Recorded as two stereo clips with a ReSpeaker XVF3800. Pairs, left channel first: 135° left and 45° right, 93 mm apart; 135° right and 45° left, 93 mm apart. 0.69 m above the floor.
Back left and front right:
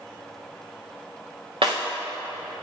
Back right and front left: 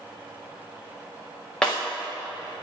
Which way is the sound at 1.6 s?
55° right.